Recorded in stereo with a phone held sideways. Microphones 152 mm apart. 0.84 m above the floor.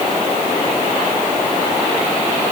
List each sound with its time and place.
Only background noise.